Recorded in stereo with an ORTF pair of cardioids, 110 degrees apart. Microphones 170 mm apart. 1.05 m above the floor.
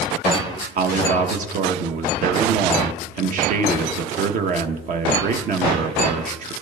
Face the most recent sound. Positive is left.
turn(degrees=-50)